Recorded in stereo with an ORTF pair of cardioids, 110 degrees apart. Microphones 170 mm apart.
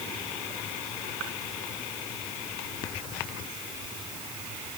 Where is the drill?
I don't hear a drill.